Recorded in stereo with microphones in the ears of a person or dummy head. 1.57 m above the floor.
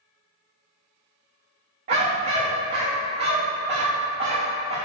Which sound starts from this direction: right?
A dog barking, at 1.9 s.